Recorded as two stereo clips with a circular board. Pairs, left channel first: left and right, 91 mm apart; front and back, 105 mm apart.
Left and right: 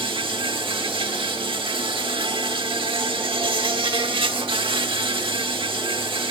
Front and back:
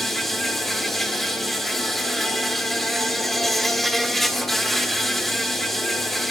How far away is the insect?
About 1.4 m.